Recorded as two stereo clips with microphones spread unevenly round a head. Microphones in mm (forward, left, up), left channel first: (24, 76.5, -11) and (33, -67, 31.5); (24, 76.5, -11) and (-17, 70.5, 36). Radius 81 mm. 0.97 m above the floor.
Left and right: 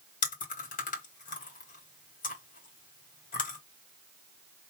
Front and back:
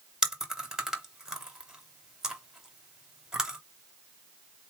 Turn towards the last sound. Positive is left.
turn(degrees=85)